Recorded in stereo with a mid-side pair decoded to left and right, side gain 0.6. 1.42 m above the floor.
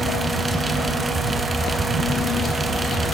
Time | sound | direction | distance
0.0 | a fan | 20° right | 1.4 m